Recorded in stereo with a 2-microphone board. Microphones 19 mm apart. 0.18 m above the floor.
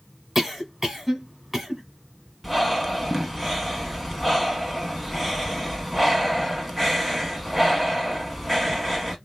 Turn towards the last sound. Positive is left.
turn(degrees=0)  # may be behind; listen again after turning